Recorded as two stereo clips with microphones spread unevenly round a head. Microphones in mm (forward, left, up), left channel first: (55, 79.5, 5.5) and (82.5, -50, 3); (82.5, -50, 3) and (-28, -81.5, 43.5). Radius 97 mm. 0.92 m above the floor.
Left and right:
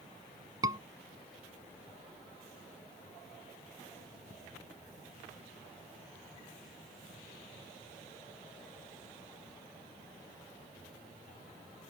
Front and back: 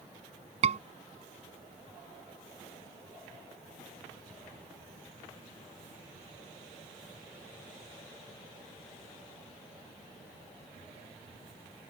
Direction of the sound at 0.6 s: 150° right.